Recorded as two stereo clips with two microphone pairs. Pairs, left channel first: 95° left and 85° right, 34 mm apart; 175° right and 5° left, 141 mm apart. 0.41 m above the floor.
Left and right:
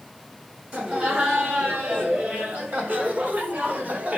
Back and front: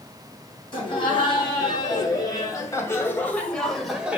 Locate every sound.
0.7 s laughter: 125° right, 4 m; by 4.2 s 75° right, 1.6 m